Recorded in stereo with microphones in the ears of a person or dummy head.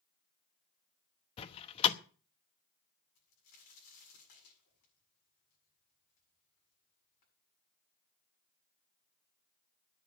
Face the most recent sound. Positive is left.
turn(degrees=50)  # may be behind; listen again after turning